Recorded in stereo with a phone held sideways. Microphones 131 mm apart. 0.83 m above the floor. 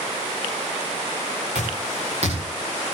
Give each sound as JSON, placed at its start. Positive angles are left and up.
{"t": 1.6, "sound": "footsteps", "side_deg": -60, "distance_m": 7.0}